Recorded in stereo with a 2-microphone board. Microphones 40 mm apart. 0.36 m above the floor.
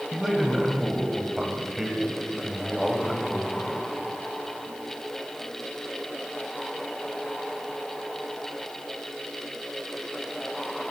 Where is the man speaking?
5° right (ahead or behind), 2.5 m.